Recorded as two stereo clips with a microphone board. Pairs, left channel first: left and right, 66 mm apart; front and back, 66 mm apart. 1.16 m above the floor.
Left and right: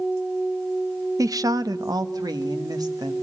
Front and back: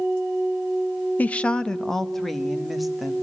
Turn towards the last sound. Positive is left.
turn(degrees=-90)